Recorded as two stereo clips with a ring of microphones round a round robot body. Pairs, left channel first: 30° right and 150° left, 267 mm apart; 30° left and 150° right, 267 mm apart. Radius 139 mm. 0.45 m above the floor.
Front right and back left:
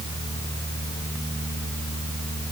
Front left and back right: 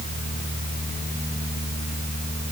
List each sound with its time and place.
Only background noise.